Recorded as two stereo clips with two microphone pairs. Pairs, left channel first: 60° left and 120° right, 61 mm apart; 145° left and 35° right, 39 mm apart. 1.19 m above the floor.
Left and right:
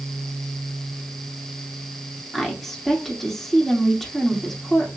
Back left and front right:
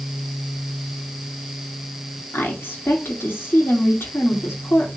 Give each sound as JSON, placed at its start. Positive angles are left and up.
{"t": 2.3, "sound": "a woman speaking", "azimuth_deg": 145, "distance_m": 2.5}